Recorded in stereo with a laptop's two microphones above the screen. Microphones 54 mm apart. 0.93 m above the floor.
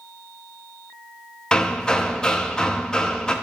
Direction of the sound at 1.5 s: 15° left (ahead or behind).